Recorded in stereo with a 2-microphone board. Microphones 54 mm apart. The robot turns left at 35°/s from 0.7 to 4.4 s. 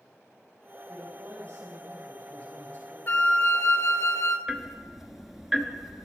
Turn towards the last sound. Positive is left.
turn(degrees=-5)  # may be behind; listen again after turning